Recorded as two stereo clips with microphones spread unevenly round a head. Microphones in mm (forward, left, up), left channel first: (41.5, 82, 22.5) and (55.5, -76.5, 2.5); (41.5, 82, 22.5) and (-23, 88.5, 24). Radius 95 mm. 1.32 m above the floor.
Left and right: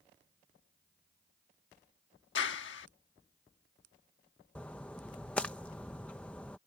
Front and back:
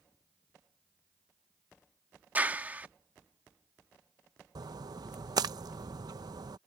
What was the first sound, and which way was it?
A clap, 110° left.